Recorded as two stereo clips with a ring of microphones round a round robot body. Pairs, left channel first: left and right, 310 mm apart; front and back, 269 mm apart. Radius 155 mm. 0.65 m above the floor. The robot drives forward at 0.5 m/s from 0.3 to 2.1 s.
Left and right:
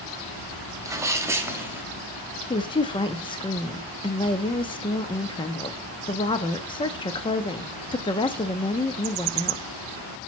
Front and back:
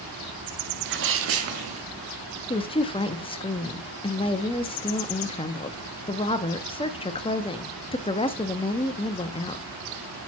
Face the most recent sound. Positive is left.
turn(degrees=40)